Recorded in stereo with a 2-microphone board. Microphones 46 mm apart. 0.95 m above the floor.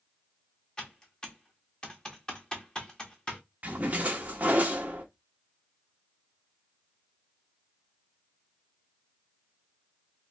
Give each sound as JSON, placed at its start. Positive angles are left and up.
{"t": 0.8, "sound": "typing on a keyboard", "side_deg": 15, "distance_m": 1.0}
{"t": 3.6, "sound": "a splash", "side_deg": -30, "distance_m": 0.8}